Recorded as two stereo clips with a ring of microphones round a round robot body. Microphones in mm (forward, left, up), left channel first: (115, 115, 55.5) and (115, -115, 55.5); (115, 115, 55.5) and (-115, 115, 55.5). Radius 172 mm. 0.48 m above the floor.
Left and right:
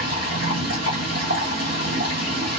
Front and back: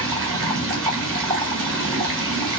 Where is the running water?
165° left, 1.4 m.